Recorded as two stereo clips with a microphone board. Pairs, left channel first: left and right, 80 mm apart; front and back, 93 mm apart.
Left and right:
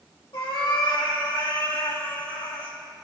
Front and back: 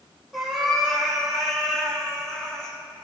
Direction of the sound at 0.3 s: 90° left.